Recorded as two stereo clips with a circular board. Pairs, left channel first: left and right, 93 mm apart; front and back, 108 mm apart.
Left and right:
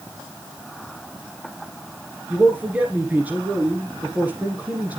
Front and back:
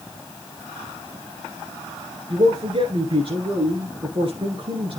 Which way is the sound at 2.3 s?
160° right.